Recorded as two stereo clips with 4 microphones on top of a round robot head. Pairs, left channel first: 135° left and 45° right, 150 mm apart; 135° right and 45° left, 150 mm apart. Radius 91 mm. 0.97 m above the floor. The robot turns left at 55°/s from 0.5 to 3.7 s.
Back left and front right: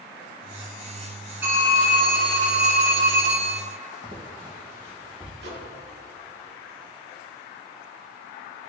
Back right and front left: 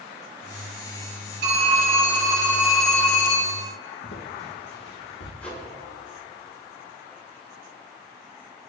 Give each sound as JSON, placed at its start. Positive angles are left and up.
{"t": 1.4, "sound": "a phone ringing", "azimuth_deg": 30, "distance_m": 4.5}
{"t": 4.0, "sound": "footsteps", "azimuth_deg": -105, "distance_m": 4.0}
{"t": 5.4, "sound": "a microwave", "azimuth_deg": -55, "distance_m": 3.0}